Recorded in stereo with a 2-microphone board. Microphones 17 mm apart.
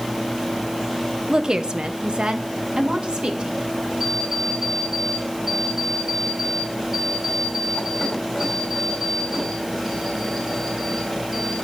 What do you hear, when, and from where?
1.3 s a woman speaking: 35° right (ahead or behind), 0.8 m; by 3.7 s 80° right, 2 m
4.0 s an alarm clock: 10° right (ahead or behind), 5.5 m